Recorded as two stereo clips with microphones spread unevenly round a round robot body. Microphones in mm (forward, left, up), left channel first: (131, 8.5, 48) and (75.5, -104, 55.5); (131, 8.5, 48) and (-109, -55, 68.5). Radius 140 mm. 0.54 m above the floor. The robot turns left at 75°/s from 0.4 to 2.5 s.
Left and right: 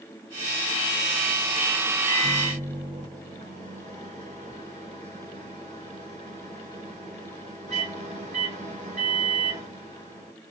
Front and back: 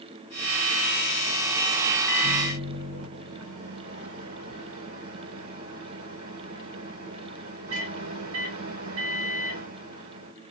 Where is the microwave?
110° right, 2 m; by 10.3 s 140° right, 2 m.